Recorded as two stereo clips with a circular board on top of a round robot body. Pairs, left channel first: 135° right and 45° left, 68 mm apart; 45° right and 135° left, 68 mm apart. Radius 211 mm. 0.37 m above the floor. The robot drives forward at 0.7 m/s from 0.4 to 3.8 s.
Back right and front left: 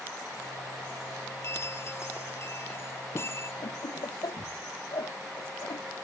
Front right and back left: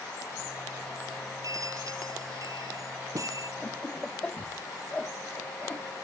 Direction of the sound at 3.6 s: 120° right.